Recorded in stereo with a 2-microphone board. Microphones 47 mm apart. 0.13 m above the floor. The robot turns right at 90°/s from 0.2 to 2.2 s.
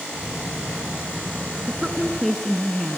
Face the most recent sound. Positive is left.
turn(degrees=0)  # may be behind; listen again after turning